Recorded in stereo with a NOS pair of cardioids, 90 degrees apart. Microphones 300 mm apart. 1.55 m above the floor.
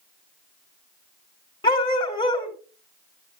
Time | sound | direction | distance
1.6 | a dog barking | 15° left | 3.5 m